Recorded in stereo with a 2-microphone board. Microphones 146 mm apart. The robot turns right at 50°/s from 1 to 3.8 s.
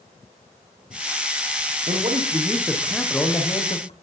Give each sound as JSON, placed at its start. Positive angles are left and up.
{"t": 1.9, "sound": "a man speaking", "azimuth_deg": -50, "distance_m": 5.5}